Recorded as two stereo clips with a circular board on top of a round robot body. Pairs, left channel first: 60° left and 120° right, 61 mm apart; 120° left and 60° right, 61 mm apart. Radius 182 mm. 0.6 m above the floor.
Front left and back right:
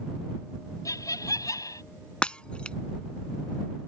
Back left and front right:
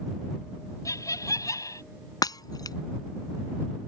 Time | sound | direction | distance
0.8 | laughter | 85° left | ?
2.2 | breaking glass | 135° left | ?